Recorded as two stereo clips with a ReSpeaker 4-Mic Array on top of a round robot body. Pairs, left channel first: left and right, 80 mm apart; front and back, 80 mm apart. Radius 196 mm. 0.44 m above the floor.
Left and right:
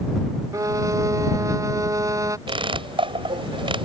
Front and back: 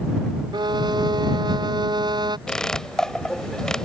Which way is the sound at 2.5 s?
85° right.